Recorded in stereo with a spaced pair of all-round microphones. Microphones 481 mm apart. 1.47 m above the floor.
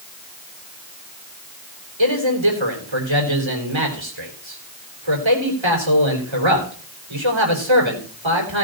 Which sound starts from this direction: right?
A man speaking, at 2.0 s.